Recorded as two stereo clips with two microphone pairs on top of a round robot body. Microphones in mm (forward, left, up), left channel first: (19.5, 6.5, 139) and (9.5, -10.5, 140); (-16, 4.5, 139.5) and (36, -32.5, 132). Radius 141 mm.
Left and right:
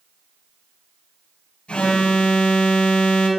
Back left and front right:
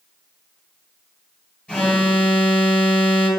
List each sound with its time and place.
1.7 s an alarm: 70° left, 5.5 m